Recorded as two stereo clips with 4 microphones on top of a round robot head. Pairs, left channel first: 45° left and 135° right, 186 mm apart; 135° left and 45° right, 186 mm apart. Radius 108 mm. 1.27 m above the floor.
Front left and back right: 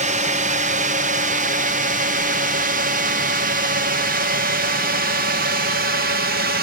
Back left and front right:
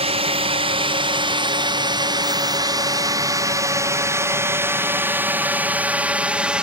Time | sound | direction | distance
0.0 | a drone | 95° right | ?